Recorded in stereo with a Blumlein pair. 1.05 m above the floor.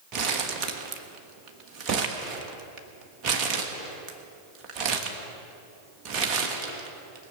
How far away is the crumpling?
About 1.4 m.